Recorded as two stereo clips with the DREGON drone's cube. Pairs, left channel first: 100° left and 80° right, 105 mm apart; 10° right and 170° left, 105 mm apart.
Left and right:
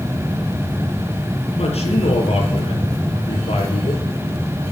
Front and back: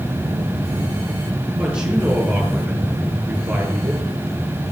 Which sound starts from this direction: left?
A man speaking, at 1.6 s.